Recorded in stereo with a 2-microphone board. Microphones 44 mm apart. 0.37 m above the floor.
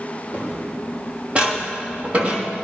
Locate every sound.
0.3 s footsteps: 30° right (ahead or behind), 4.5 m